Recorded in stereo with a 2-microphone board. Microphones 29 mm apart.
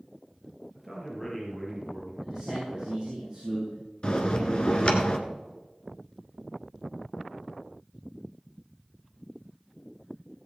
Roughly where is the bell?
Left.